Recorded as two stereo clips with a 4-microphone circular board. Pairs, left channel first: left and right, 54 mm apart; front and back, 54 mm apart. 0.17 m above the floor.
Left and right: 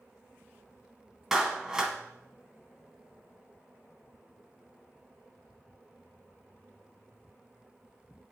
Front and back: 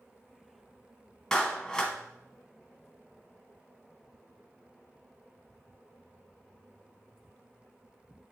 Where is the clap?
45° right, 0.8 m.